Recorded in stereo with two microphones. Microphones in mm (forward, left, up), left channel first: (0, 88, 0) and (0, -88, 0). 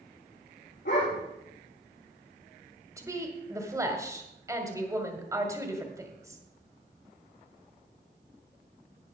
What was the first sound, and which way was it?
A dog barking, 85° left.